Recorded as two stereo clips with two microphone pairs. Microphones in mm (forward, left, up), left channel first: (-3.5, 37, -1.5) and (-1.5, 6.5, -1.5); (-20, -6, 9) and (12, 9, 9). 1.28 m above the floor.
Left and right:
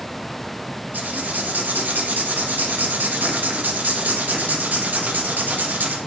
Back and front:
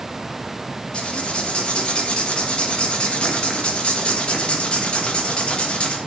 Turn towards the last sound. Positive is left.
turn(degrees=-95)